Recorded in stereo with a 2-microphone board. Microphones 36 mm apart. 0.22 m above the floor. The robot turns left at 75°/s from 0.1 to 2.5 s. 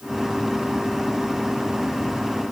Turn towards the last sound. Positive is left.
No sound to turn to.